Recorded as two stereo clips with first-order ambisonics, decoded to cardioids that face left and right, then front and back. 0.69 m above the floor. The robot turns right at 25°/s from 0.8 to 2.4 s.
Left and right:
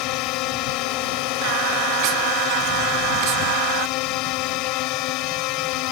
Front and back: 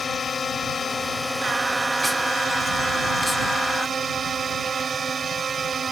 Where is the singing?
105° right; by 3.9 s 80° right.